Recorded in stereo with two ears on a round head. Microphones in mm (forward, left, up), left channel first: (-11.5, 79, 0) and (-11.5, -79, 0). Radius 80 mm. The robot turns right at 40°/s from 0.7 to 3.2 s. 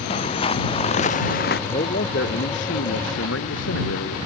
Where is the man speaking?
35° left; by 4.2 s 95° left.